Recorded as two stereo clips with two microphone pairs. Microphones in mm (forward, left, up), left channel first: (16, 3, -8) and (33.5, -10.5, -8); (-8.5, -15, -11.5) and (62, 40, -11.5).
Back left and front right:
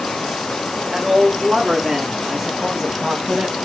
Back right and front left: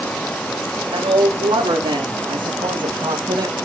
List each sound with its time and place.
0.9 s a woman speaking: 25° left, 3.5 m; by 3.5 s 5° right, 2.0 m